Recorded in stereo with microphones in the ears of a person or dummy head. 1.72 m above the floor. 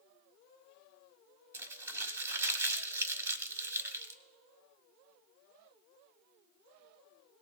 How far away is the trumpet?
No trumpet in this recording.